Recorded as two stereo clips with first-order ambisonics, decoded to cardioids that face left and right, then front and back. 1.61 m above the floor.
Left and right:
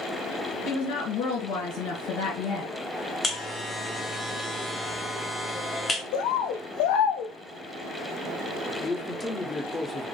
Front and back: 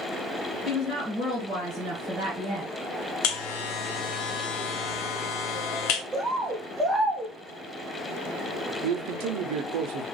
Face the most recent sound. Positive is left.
turn(degrees=170)